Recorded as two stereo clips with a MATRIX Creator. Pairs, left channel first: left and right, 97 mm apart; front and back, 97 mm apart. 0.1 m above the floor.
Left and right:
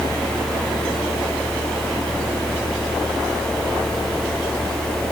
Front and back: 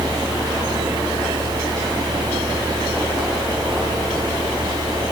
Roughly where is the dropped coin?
I don't hear a dropped coin.